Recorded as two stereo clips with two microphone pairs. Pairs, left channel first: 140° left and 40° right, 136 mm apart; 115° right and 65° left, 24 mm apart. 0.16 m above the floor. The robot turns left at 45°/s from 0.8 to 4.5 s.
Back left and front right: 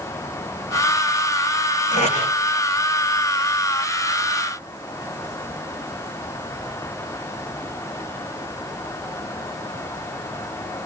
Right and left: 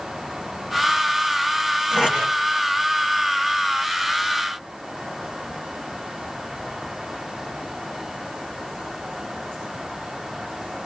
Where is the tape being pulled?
110° left, 10 m; by 2.2 s 95° left, 10 m.